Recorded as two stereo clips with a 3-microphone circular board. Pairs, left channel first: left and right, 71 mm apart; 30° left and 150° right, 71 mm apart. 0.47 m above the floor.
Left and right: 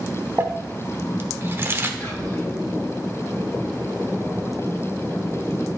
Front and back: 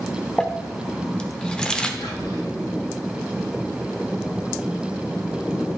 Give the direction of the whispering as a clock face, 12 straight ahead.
11 o'clock.